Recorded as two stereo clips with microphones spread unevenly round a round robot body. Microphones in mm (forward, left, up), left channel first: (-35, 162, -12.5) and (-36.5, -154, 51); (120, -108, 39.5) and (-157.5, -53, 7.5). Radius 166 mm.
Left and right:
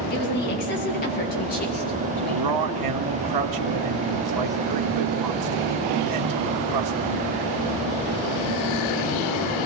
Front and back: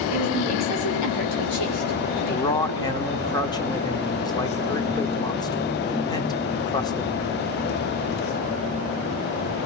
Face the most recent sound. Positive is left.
turn(degrees=-90)